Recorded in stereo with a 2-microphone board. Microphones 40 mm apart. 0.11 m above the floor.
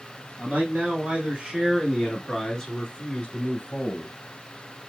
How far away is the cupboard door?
I don't hear a cupboard door.